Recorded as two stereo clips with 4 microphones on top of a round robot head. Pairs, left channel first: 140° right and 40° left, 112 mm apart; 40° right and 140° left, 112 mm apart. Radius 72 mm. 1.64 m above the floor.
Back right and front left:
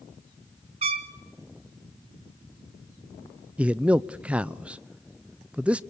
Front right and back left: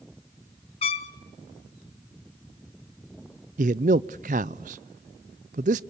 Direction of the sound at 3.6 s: 120° left.